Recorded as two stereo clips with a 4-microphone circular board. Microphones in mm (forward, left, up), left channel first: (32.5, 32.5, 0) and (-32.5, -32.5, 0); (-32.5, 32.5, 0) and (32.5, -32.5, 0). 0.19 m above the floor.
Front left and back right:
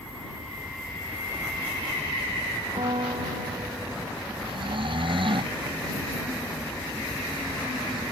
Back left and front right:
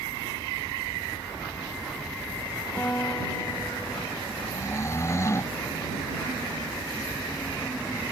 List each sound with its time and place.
2.8 s a guitar: 155° right
4.4 s snoring: 165° right